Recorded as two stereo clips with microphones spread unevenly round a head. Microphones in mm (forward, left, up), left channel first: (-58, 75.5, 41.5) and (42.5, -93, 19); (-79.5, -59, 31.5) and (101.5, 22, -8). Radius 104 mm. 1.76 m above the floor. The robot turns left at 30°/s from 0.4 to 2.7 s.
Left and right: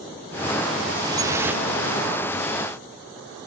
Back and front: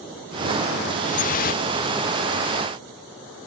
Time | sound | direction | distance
1.0 | dripping | 130° right | 0.6 m